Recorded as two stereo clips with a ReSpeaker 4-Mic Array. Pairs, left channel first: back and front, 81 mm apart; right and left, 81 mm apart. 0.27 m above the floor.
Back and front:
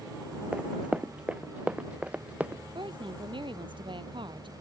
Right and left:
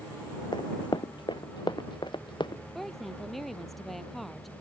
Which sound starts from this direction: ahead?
A woman speaking, at 2.8 s.